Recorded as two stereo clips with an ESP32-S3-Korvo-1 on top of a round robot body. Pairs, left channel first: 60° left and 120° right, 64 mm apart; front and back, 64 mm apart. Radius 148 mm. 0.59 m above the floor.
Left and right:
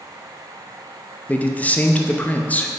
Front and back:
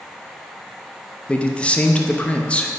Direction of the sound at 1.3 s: 40° left.